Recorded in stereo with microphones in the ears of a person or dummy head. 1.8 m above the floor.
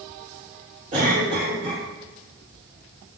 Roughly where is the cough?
Right.